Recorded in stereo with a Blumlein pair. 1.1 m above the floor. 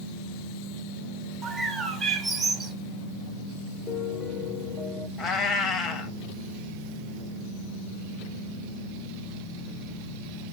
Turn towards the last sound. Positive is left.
turn(degrees=30)